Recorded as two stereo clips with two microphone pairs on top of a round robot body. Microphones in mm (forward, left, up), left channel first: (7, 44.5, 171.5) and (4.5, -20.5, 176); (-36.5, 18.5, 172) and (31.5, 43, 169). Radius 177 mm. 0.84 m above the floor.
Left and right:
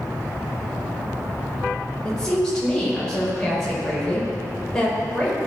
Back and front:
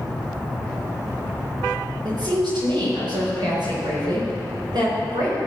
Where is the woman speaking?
10° left, 5.5 m.